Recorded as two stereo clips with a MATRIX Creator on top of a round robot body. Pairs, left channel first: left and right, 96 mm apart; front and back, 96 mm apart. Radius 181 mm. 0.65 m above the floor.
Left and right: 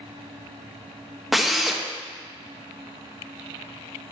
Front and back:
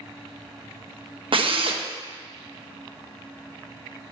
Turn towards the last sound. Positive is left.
turn(degrees=180)